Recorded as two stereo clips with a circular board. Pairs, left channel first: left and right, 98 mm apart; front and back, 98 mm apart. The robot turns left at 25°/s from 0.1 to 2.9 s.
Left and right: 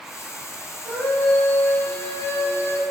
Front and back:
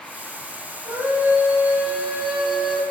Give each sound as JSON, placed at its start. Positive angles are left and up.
{"t": 0.8, "sound": "a scream", "azimuth_deg": 145, "distance_m": 1.4}